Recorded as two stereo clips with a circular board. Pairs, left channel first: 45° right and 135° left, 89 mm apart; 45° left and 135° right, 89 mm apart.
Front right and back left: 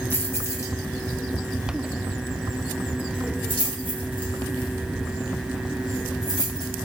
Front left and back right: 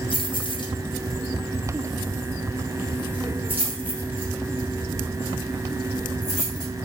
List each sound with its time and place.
0.1 s keys jangling: 25° left, 0.9 m; by 6.7 s 80° right, 3 m